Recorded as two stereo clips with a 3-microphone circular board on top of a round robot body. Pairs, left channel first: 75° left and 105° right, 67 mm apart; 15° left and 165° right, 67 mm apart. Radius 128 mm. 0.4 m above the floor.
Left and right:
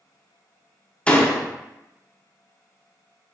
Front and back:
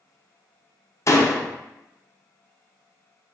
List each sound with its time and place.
1.1 s a door slam: 5° left, 0.6 m